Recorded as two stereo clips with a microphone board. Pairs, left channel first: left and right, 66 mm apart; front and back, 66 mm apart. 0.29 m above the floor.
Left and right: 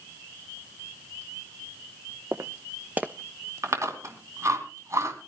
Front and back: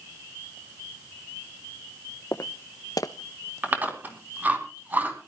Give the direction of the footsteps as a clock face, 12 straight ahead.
1 o'clock.